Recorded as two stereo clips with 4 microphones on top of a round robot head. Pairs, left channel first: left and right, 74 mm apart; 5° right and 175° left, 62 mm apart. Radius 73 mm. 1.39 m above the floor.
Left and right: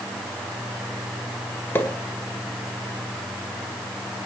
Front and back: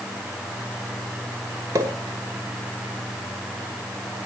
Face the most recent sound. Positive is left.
turn(degrees=150)